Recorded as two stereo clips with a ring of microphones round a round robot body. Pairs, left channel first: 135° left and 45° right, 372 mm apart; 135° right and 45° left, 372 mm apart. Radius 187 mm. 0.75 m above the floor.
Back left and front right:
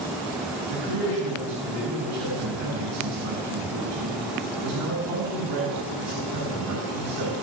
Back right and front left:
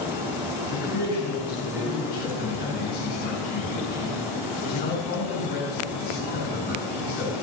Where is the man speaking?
75° right, 7 m.